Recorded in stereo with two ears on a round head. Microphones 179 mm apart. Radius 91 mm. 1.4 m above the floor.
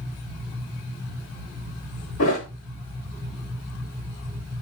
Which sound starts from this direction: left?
A thud, at 2.2 s.